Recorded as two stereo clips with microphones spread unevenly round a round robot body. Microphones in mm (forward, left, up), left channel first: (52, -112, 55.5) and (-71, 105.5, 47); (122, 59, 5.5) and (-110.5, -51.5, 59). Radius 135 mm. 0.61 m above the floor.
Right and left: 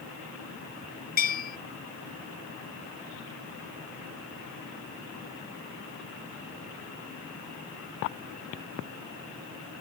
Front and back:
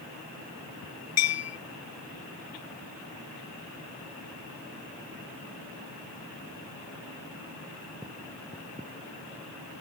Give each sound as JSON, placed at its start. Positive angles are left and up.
{"t": 1.2, "sound": "a bell", "azimuth_deg": -5}